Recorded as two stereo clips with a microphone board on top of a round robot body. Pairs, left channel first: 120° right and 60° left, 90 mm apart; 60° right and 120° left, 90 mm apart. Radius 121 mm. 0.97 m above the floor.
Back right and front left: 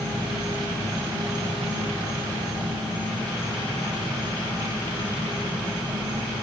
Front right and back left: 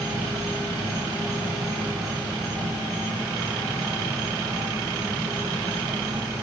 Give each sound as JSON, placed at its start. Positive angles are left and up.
{"t": 0.0, "sound": "an insect", "azimuth_deg": 175, "distance_m": 4.0}